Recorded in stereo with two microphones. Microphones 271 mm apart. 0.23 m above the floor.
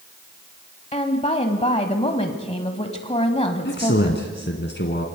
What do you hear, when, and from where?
0.9 s a woman speaking: 25° left (ahead or behind), 1.3 m
3.6 s a man speaking: 45° left (ahead or behind), 1.8 m